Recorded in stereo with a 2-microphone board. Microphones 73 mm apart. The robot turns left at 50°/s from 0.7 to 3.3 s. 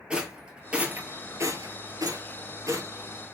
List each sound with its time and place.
0.1 s a rattle: 15° right (ahead or behind), 1.1 m; by 2.9 s 45° right (ahead or behind), 1.1 m